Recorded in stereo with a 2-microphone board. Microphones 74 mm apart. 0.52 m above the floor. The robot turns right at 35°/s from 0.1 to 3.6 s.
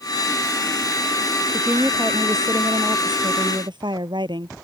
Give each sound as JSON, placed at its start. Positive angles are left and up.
{"t": 1.5, "sound": "a woman speaking", "azimuth_deg": -170}